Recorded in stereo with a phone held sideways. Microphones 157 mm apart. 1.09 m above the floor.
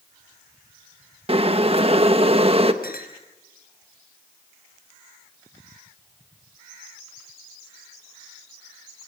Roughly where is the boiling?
Right.